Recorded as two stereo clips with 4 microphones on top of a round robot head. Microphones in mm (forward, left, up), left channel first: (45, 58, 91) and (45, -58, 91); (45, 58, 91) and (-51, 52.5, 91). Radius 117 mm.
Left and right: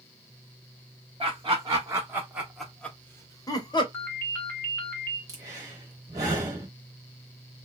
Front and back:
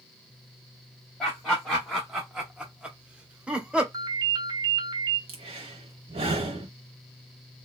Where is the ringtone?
160° left, 1.0 m.